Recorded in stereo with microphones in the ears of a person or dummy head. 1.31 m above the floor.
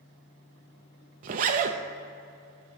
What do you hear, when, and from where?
1.2 s a zipper: 40° right (ahead or behind), 0.6 m